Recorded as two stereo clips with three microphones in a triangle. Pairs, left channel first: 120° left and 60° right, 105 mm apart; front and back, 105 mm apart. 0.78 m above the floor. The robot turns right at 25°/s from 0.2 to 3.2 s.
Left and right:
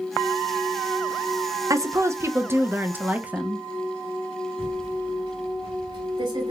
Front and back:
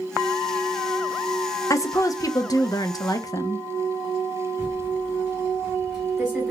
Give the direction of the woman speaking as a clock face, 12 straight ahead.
1 o'clock.